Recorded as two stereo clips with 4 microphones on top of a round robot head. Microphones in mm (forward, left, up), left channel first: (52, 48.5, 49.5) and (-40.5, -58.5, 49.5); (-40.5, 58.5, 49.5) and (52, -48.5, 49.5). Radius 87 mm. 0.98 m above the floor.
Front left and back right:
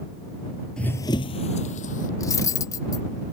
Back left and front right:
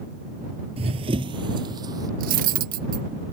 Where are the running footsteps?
35° right; by 2.1 s 15° left.